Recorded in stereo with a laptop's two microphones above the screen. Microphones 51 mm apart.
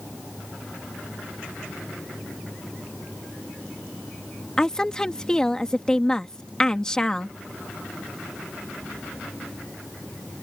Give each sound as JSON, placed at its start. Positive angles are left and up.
{"t": 4.6, "sound": "a woman speaking", "side_deg": 15}